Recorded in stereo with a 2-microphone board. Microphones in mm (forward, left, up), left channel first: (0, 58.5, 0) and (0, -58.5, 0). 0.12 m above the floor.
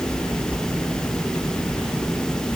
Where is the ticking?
I don't hear ticking.